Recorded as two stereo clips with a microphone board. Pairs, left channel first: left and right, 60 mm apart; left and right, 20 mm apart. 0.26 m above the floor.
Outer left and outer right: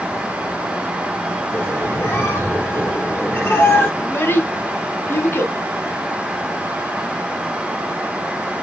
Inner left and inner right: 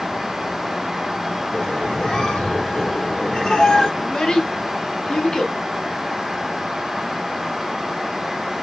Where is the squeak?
35° left (ahead or behind), 2.5 m.